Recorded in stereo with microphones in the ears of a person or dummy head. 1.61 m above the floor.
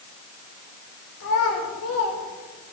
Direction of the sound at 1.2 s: 85° left.